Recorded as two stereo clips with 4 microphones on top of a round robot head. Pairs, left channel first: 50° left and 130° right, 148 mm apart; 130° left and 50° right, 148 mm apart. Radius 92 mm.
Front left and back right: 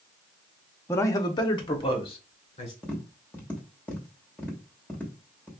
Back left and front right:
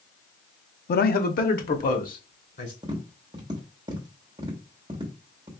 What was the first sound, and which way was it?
A man speaking, 120° left.